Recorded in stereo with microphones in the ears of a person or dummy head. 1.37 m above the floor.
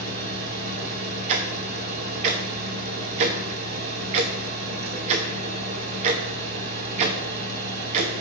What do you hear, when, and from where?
0.0 s a fan: 50° right (ahead or behind), 2.5 m
1.3 s ticking: 30° right (ahead or behind), 0.7 m